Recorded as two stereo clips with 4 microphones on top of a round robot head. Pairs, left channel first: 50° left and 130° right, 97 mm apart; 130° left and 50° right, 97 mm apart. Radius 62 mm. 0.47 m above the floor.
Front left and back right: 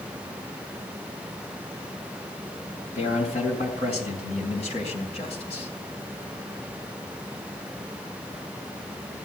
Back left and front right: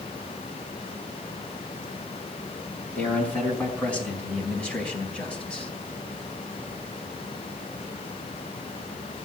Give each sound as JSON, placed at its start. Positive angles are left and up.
{"t": 3.0, "sound": "a man speaking", "azimuth_deg": 50, "distance_m": 4.5}